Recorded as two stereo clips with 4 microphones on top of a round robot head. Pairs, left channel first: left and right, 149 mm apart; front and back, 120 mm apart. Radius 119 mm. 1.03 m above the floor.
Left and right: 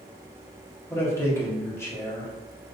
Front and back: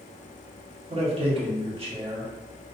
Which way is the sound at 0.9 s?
160° left.